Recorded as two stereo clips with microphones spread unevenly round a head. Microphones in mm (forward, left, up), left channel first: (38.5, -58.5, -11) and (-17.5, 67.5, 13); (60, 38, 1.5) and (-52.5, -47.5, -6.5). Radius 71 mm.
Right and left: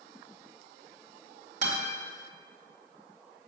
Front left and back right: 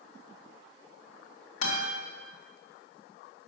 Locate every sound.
1.6 s a guitar: 75° left, 2.5 m